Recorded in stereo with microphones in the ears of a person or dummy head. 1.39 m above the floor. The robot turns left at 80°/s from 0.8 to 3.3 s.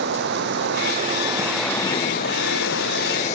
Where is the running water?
120° right; by 3.4 s 40° left.